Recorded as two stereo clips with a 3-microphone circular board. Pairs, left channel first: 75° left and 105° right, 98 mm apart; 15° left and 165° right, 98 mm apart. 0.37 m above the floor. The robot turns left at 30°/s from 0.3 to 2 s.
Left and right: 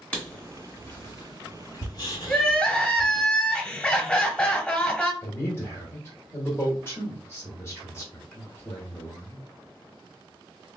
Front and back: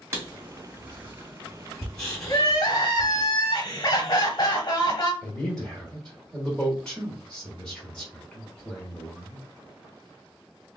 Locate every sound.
0.1 s writing: 145° left, 1.6 m; by 3.3 s 95° left, 1.6 m
2.3 s crying: 5° left, 1.0 m
5.2 s a man speaking: 85° left, 1.4 m